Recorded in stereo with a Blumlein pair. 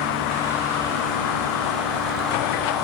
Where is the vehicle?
45° left; by 2.9 s 35° left.